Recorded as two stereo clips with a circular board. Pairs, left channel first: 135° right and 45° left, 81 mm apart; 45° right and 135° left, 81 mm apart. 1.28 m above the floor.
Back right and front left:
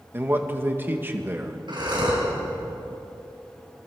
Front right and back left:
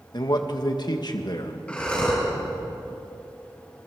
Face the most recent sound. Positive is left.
turn(degrees=30)